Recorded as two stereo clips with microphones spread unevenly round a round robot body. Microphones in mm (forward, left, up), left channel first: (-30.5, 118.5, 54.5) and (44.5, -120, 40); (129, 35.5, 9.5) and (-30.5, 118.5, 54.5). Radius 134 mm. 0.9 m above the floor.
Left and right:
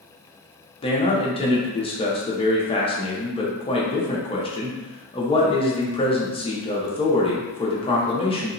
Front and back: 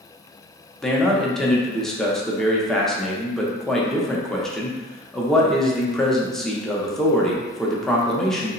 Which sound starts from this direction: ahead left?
A man speaking, at 0.8 s.